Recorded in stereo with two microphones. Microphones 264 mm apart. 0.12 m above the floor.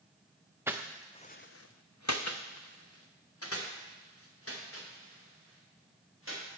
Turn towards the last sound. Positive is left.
turn(degrees=55)  # may be behind; listen again after turning